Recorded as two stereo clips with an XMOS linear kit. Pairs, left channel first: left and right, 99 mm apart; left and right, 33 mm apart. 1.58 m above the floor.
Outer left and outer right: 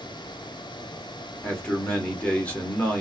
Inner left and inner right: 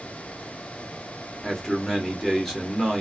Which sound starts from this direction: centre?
A man speaking, at 1.4 s.